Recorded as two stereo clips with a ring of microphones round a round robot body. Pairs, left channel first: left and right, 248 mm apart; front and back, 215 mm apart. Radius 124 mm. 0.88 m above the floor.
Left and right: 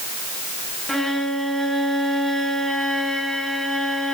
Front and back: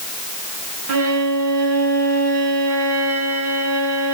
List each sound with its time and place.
0.9 s a violin: straight behind, 2.5 m